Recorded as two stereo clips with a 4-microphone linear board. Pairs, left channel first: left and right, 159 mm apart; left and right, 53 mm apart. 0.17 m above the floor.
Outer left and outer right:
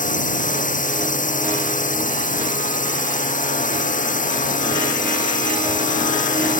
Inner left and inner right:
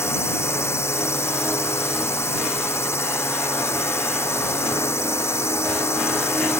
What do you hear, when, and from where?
0.0 s a drone: 60° left (ahead or behind)